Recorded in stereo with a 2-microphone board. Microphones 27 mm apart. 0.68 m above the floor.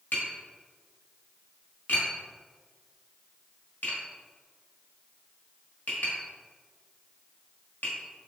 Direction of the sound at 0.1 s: 85° left.